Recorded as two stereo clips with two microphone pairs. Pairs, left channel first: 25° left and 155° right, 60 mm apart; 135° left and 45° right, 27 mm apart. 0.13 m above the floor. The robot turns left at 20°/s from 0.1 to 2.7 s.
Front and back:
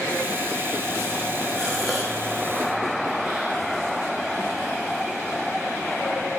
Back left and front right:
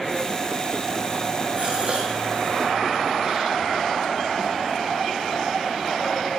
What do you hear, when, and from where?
1.6 s a gasp: 55° right, 5 m; by 3.5 s 80° right, 5 m